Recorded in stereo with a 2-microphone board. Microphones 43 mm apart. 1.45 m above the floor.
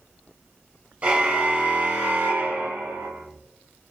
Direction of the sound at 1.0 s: 30° right (ahead or behind).